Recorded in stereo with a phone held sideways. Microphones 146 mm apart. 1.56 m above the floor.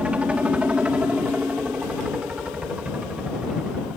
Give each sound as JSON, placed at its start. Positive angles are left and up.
{"t": 0.0, "sound": "a helicopter", "side_deg": -10}